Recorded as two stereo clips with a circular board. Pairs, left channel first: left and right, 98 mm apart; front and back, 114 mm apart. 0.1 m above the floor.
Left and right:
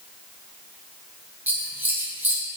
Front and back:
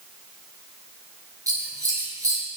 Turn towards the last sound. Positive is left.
turn(degrees=-145)